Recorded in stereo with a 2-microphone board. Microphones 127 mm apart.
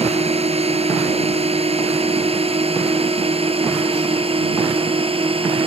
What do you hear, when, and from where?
0.0 s a drone: 55° right (ahead or behind); by 5.7 s 45° right (ahead or behind)